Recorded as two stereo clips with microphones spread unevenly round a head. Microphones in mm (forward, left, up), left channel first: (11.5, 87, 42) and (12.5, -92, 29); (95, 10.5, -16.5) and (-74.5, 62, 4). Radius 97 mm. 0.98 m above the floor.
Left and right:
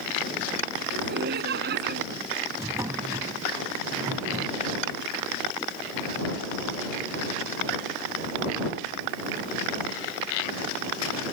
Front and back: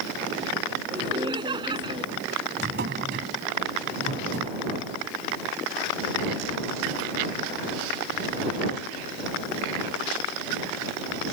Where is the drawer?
165° right.